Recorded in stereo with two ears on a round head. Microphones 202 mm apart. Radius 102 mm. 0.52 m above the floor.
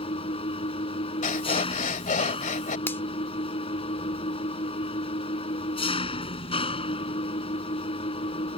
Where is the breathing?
35° left (ahead or behind).